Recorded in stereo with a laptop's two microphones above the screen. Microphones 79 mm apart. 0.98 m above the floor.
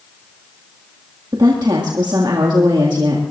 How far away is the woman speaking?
About 1.8 m.